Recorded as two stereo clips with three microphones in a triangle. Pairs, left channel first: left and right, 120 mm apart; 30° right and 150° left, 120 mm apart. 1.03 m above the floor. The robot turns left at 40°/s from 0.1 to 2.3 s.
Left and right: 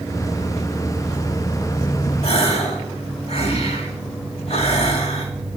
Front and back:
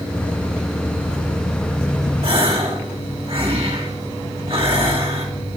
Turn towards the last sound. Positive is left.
turn(degrees=115)